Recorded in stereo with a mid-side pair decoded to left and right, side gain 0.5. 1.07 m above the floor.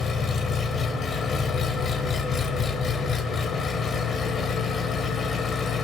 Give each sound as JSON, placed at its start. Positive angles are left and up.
{"t": 0.0, "sound": "an engine running", "azimuth_deg": 45, "distance_m": 2.5}